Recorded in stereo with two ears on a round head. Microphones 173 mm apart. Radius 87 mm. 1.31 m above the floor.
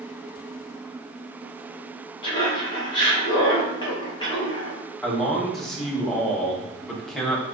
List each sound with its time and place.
2.2 s laughter: 25° left (ahead or behind), 1.6 m
5.0 s a man speaking: centre (ahead or behind), 1.1 m